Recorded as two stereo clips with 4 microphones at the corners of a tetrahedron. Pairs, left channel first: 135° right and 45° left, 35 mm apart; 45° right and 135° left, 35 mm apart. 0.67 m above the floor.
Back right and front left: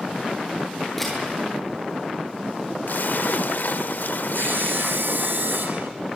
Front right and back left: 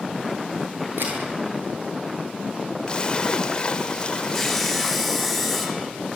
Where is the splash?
115° right, 0.8 m.